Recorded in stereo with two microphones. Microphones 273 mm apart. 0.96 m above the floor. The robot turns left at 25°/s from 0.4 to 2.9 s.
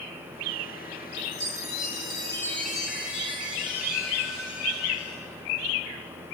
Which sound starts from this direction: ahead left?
A chime, at 1.2 s.